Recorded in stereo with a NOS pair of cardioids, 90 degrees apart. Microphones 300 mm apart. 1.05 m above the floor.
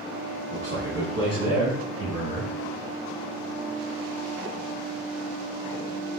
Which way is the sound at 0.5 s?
45° right.